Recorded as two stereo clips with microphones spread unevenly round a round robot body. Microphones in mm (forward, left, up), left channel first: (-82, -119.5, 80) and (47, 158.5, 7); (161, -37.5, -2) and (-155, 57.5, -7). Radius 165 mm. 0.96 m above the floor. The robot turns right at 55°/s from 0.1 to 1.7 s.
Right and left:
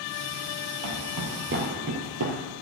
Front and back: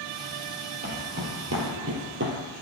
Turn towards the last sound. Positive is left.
turn(degrees=105)